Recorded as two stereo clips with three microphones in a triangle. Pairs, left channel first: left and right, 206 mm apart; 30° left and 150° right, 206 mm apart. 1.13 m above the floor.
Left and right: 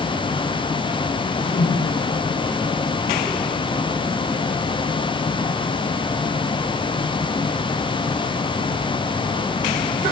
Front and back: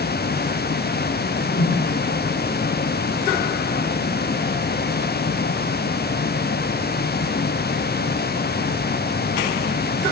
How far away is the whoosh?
About 5 m.